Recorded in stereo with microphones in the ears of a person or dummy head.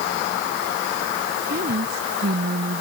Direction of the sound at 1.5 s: 60° right (ahead or behind).